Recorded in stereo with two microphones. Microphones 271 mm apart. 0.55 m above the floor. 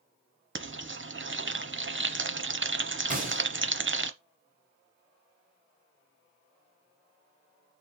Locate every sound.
0.6 s frying: 45° right (ahead or behind), 0.9 m
3.1 s a gunshot: 30° right (ahead or behind), 3 m